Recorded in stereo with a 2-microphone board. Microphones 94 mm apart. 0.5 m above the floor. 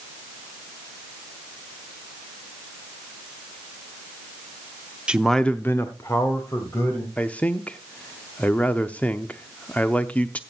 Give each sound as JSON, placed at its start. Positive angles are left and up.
{"t": 5.1, "sound": "a man speaking", "side_deg": -10, "distance_m": 0.7}
{"t": 7.2, "sound": "a man speaking", "side_deg": 15, "distance_m": 0.7}